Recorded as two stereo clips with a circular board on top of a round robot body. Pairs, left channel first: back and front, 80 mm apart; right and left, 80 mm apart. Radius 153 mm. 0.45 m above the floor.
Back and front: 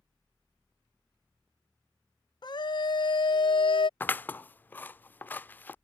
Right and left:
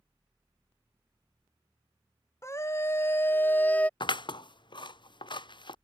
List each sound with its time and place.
2.4 s a scream: 150° right; by 3.9 s 165° right
4.0 s scissors: 115° right